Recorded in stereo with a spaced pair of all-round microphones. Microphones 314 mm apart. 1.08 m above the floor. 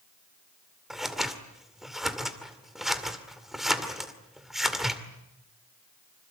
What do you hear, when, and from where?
0.9 s scissors: centre (ahead or behind), 2 m